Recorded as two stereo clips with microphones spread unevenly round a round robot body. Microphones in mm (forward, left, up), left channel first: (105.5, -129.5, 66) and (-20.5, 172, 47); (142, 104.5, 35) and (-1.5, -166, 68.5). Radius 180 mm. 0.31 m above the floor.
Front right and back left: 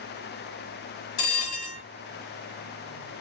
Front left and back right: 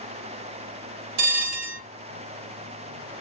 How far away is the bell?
About 0.7 m.